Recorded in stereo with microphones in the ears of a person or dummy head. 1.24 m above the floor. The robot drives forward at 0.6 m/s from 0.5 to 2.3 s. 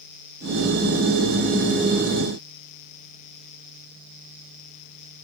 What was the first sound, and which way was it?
Only background noise.